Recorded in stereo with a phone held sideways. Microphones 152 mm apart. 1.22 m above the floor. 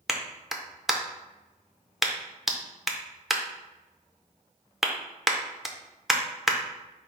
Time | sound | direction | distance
0.1 | a clap | centre (ahead or behind) | 0.5 m